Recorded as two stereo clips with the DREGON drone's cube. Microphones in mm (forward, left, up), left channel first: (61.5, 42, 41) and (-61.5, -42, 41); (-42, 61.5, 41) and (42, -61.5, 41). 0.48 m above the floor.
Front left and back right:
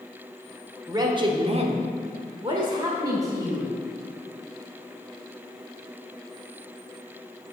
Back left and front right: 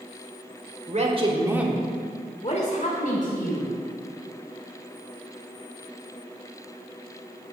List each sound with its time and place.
0.9 s a man speaking: 85° right, 1.2 m; by 3.7 s 145° left, 2.5 m